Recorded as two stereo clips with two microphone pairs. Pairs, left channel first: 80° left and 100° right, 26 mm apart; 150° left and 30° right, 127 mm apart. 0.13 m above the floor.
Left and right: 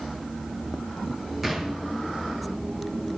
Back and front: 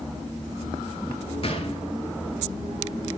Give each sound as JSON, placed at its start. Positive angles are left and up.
{"t": 1.4, "sound": "a gunshot", "azimuth_deg": -175, "distance_m": 0.9}